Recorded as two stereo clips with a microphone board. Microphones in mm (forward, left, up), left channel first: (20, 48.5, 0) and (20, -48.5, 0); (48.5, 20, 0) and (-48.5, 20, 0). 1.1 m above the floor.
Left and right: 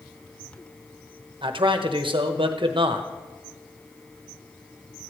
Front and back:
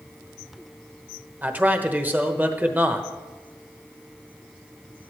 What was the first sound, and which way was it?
A man speaking, 110° right.